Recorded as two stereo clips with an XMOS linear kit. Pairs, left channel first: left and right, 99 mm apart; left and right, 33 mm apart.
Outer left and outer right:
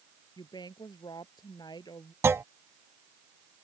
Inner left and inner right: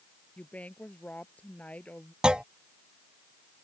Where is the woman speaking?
45° left (ahead or behind).